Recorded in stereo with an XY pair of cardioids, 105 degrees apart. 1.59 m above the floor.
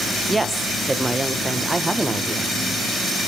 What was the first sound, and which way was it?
A woman speaking, 20° right.